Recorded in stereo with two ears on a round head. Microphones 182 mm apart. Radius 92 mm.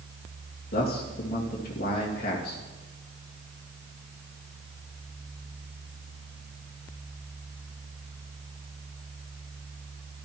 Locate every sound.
0.7 s a man speaking: 45° left (ahead or behind), 2.5 m